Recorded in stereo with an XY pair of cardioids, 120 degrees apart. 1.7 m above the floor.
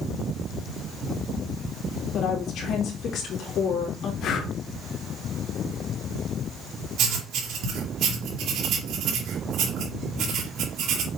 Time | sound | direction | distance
2.1 | a woman speaking | 65° left | 3 m
4.2 | breathing | 60° left | 1.6 m
7.0 | writing | 65° right | 2.5 m